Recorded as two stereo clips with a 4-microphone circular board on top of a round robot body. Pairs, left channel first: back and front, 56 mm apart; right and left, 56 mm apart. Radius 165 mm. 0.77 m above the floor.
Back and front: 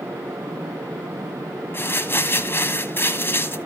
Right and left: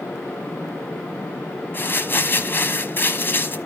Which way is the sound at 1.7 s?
135° right.